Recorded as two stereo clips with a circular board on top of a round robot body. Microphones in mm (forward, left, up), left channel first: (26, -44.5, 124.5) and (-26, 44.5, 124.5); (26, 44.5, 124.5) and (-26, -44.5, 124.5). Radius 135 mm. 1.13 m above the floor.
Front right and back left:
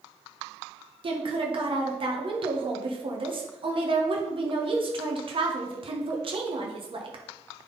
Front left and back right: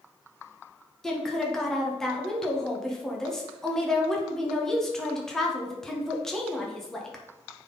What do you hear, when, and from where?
1.0 s a woman speaking: 145° left, 1.5 m